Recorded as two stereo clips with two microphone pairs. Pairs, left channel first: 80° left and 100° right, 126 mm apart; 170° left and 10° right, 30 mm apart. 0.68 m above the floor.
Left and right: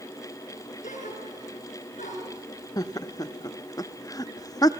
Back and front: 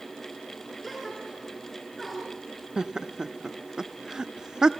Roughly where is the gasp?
Left.